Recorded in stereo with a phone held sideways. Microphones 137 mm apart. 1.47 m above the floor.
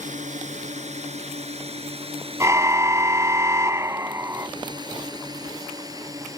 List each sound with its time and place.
0.0 s a drone: 60° right (ahead or behind); by 6.4 s 25° right (ahead or behind)
2.4 s a car horn: 20° right (ahead or behind)